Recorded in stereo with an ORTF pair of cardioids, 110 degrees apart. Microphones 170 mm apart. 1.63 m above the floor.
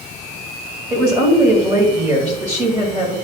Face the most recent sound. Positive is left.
turn(degrees=-20)